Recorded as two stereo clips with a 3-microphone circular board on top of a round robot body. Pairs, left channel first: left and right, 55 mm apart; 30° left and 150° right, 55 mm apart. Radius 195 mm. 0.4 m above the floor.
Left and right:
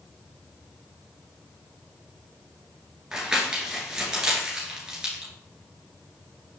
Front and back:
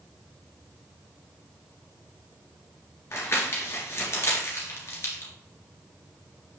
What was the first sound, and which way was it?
Crumpling, 15° right.